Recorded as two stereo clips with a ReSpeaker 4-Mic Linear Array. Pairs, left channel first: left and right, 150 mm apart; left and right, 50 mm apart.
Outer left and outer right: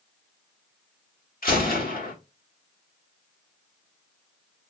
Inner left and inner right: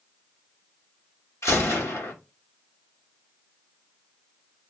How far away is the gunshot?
About 1.2 m.